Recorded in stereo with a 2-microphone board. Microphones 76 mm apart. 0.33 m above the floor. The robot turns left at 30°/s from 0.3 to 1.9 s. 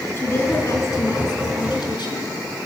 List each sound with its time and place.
0.2 s a woman speaking: 145° left, 4 m; by 2.3 s 100° left, 4 m